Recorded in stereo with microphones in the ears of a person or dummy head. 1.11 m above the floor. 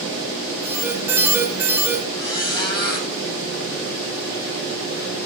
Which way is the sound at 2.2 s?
25° left (ahead or behind).